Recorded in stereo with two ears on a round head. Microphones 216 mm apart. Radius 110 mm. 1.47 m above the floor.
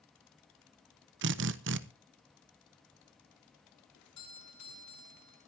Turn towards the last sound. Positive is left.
turn(degrees=85)